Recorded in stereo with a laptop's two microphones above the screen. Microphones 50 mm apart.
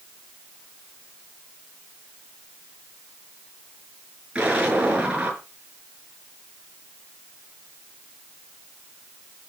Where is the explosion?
25° right (ahead or behind), 6.5 m.